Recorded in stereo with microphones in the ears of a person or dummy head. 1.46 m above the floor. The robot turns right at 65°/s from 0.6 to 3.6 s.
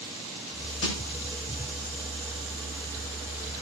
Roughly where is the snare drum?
Left.